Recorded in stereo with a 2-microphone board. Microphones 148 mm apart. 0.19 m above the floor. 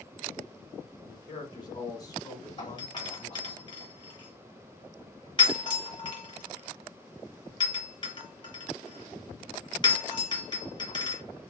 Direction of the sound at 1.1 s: 25° left (ahead or behind).